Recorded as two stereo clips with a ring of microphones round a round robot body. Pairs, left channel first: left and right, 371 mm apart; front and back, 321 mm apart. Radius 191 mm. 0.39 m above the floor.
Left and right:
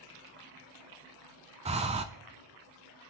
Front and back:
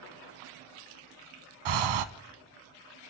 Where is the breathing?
165° right, 0.5 m.